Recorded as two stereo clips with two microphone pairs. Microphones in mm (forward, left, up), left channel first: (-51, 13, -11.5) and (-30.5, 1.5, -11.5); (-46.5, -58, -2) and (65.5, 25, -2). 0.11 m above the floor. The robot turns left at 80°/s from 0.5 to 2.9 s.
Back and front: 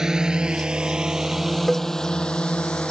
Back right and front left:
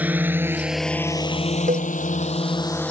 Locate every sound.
0.0 s a drone: 30° right; by 2.9 s 135° left
1.7 s a cowbell: 55° left; by 1.9 s 35° left